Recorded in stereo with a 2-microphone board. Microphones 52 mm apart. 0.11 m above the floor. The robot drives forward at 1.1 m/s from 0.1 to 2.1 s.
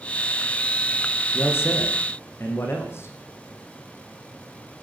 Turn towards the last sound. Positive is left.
turn(degrees=50)  # may be behind; listen again after turning